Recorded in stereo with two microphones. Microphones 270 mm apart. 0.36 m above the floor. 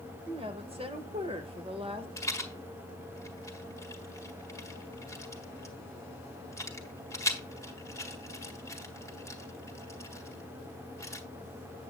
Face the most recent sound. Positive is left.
turn(degrees=10)  # may be behind; listen again after turning